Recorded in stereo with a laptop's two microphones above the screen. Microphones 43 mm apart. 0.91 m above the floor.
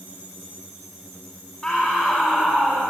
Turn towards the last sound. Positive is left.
turn(degrees=20)  # may be behind; listen again after turning